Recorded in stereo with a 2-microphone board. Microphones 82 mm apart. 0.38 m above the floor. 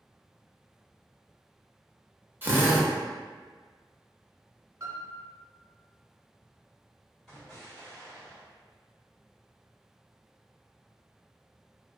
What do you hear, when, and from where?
2.4 s a drill: 25° right (ahead or behind), 0.5 m
4.8 s a piano: 40° right (ahead or behind), 0.7 m
7.3 s an explosion: 5° left (ahead or behind), 1.8 m